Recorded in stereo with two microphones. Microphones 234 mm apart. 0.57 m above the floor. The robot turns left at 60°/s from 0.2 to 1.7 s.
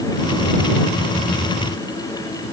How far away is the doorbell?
No doorbell in this recording.